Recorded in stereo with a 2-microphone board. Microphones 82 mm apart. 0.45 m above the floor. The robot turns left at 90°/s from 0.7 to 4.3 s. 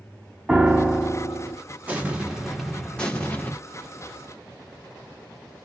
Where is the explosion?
20° right (ahead or behind), 0.9 m; by 3.5 s 20° left (ahead or behind), 0.9 m.